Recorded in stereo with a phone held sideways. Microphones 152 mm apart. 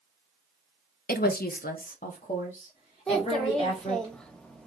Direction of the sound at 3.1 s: 5° left (ahead or behind).